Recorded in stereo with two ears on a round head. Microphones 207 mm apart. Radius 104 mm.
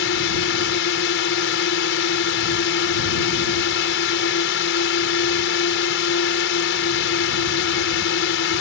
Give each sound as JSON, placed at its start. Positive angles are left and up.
{"t": 0.0, "sound": "a drone", "side_deg": 55}